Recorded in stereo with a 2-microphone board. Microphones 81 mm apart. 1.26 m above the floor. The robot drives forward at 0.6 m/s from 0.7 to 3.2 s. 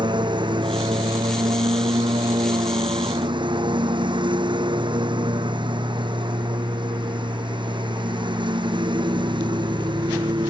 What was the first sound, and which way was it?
A lawn mower, 80° right.